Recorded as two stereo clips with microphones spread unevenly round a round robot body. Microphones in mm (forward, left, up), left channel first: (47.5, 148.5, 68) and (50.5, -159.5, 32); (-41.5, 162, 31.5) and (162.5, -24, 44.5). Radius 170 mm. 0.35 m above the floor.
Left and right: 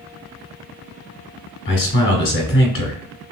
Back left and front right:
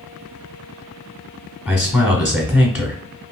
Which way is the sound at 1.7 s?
50° left.